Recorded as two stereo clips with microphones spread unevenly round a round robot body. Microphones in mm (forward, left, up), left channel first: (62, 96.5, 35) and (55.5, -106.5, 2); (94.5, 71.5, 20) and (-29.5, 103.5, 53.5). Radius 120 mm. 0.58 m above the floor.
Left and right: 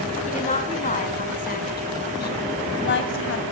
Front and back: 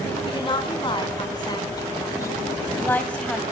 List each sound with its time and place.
0.3 s a woman speaking: 30° left, 7.5 m; by 3.4 s 70° left, 4 m